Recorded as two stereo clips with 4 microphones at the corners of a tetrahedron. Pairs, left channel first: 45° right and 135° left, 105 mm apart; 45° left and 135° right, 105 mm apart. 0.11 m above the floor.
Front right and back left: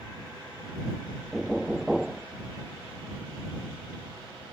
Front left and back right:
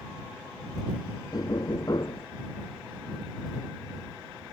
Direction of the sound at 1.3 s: 50° left.